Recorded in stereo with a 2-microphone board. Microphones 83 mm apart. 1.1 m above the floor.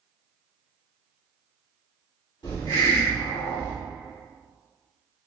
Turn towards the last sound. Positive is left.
turn(degrees=70)  # may be behind; listen again after turning